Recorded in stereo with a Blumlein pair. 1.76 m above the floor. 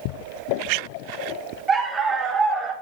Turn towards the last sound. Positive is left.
turn(degrees=-10)